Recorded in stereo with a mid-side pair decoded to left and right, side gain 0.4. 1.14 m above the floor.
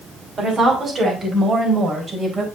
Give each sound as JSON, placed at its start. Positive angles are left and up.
{"t": 0.4, "sound": "a woman speaking", "azimuth_deg": -50, "distance_m": 5.5}